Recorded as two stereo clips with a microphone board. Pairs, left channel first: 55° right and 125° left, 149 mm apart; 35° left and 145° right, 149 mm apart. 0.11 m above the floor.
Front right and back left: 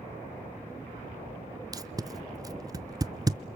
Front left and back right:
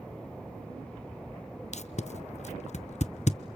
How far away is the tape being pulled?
About 0.5 m.